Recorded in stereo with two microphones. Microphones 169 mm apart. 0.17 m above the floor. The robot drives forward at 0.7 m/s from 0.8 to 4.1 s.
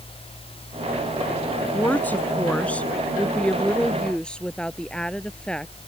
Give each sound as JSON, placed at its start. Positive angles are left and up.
{"t": 1.7, "sound": "a woman speaking", "side_deg": 10}